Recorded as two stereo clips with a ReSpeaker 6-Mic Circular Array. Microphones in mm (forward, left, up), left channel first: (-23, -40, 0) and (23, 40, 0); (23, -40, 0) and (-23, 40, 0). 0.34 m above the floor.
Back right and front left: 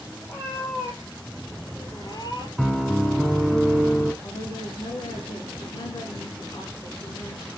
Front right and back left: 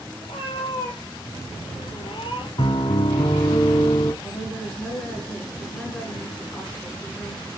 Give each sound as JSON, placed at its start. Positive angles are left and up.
{"t": 0.2, "sound": "a cat meowing", "azimuth_deg": -60, "distance_m": 2.5}
{"t": 2.6, "sound": "a piano", "azimuth_deg": -30, "distance_m": 0.8}
{"t": 4.2, "sound": "a woman speaking", "azimuth_deg": -140, "distance_m": 4.0}